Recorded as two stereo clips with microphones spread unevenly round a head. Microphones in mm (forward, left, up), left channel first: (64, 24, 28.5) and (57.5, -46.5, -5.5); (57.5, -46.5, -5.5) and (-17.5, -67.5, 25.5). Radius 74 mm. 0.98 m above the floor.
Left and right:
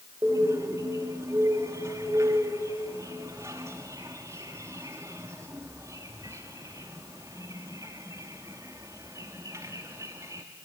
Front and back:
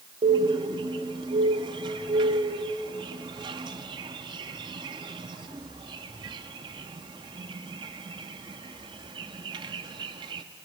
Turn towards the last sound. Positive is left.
turn(degrees=-175)